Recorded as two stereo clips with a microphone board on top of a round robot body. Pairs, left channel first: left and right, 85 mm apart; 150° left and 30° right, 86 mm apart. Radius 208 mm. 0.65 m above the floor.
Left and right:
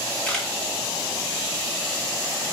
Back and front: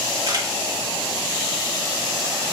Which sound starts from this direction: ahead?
A camera shutter, at 0.3 s.